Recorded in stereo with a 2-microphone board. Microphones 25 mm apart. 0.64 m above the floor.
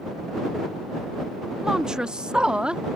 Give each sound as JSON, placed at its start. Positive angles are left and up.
{"t": 1.6, "sound": "a woman speaking", "side_deg": -20}